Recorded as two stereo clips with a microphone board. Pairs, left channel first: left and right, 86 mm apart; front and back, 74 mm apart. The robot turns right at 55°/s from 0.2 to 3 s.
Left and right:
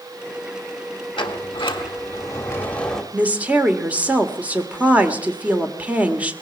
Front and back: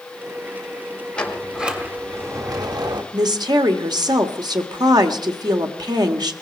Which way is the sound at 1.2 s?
75° left.